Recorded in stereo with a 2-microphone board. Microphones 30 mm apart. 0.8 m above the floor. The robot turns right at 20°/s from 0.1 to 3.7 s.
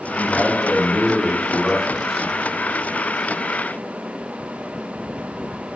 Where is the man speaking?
140° left, 0.9 m; by 2.3 s straight behind, 0.9 m.